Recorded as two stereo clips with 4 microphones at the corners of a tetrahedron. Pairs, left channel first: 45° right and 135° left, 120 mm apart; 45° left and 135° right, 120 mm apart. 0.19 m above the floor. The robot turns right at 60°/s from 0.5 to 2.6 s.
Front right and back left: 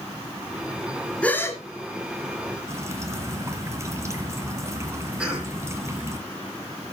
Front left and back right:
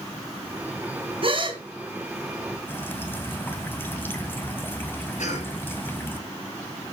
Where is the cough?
55° left, 5.5 m.